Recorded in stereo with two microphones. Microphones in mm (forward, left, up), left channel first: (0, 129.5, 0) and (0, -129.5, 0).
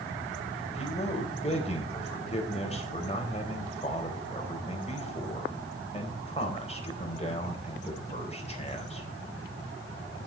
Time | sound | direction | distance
0.7 | a man speaking | 25° left (ahead or behind) | 4 m